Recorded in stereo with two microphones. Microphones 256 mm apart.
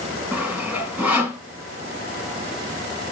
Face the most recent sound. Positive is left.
turn(degrees=-5)  # may be behind; listen again after turning